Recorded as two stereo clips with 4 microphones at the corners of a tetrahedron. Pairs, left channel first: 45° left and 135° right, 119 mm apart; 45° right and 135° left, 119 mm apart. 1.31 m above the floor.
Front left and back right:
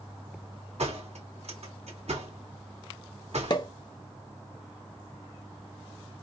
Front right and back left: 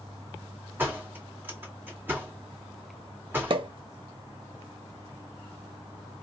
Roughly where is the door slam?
Behind right.